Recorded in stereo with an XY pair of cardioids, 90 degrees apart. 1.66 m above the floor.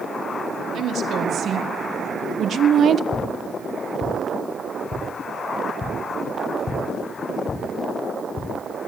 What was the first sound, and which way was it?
A woman speaking, 70° right.